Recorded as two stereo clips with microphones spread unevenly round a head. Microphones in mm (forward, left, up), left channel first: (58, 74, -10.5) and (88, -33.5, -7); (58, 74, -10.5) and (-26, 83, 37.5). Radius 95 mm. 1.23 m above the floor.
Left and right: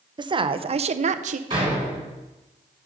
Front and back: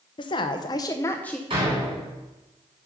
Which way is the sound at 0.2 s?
25° right.